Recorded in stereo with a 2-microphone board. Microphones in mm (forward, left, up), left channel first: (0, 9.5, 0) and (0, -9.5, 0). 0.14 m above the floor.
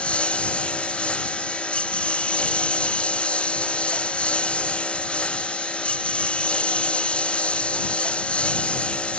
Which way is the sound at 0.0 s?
80° left.